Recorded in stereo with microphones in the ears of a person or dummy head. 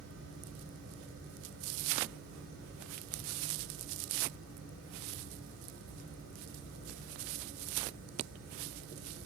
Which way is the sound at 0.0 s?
70° right (ahead or behind).